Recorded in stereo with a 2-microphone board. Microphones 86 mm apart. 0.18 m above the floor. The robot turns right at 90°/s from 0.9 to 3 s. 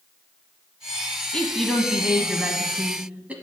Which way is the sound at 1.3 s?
10° left (ahead or behind).